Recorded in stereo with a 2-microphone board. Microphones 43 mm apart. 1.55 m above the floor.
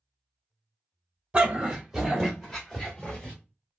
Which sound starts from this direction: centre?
A dog barking, at 1.3 s.